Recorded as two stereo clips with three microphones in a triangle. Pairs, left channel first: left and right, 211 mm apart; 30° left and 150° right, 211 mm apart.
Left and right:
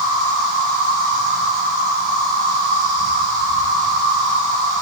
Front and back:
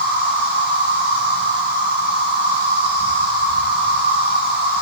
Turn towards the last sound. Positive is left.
turn(degrees=-130)